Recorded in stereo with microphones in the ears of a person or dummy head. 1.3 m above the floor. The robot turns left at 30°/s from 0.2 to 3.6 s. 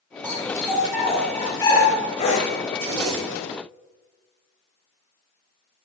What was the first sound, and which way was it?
A dog barking, 20° right (ahead or behind).